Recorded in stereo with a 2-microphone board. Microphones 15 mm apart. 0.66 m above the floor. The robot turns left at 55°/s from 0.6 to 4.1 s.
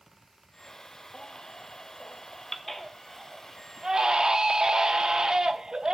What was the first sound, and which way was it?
A baby crying, 100° left.